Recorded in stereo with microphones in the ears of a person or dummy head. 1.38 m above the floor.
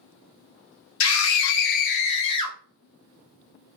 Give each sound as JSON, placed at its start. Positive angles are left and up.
{"t": 1.0, "sound": "a scream", "side_deg": 80, "distance_m": 0.7}